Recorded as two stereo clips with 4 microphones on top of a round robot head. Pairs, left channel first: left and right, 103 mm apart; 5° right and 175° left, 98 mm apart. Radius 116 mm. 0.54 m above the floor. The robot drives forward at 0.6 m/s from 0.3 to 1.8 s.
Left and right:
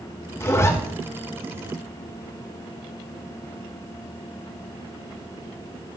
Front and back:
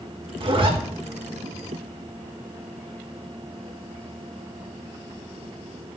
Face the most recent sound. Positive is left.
turn(degrees=160)